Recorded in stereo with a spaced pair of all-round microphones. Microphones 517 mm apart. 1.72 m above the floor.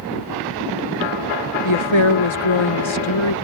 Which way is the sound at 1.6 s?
65° left (ahead or behind).